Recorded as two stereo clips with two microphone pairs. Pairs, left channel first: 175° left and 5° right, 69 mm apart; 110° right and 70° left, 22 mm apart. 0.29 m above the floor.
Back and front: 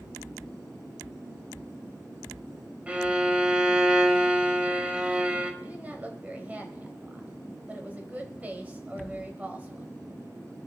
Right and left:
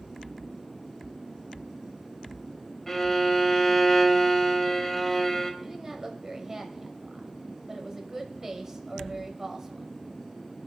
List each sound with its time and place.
2.9 s a violin: 60° right, 1.0 m
5.6 s a woman speaking: 25° left, 1.1 m